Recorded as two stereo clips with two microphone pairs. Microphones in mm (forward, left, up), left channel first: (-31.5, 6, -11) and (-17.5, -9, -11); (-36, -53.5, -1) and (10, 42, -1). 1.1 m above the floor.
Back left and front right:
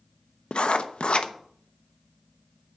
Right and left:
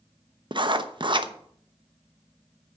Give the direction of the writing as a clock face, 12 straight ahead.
8 o'clock.